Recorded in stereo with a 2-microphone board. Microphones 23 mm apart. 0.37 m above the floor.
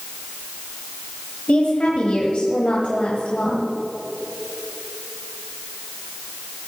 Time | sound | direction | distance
1.5 | a woman speaking | 55° left (ahead or behind) | 1.6 m